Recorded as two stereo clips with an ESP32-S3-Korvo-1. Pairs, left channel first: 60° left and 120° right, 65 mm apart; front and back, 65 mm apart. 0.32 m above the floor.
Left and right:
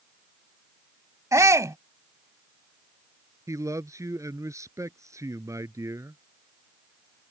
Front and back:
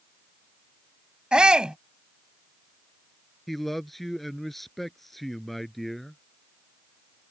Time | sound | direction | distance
1.3 | a shout | 105° right | ?
3.5 | a man speaking | 85° right | ?